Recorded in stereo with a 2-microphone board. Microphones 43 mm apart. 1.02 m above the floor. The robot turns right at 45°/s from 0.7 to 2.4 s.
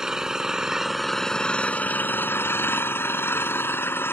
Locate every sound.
0.0 s an engine running: 15° right; by 4.1 s 65° left